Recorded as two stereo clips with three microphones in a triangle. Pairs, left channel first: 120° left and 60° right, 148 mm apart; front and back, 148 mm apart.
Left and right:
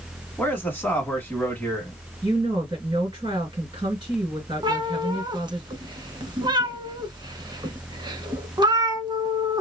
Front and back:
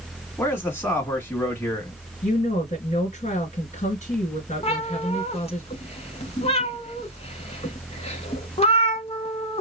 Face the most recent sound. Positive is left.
turn(degrees=-10)